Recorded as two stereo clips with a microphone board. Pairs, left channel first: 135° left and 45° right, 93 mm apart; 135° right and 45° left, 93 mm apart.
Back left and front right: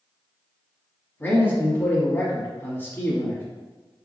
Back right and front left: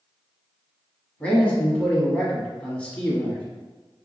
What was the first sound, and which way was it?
A man speaking, 165° left.